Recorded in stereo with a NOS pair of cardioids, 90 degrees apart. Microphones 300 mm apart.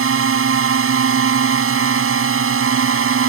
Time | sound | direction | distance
0.0 | a drone | 45° right | ?